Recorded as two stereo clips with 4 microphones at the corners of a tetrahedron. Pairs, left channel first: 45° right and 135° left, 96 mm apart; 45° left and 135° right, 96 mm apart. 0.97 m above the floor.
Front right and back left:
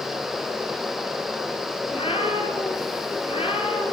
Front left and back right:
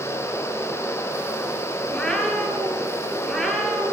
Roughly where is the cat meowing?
Ahead right.